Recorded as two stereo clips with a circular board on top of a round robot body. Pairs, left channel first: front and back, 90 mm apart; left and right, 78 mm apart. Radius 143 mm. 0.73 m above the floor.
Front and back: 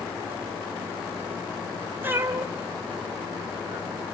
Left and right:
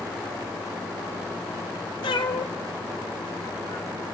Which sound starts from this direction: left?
A cat meowing, at 2.0 s.